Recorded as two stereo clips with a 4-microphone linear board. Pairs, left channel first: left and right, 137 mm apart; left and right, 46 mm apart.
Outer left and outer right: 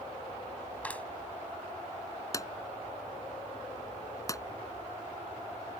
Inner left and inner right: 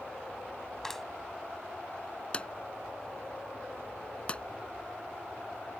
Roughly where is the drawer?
Left.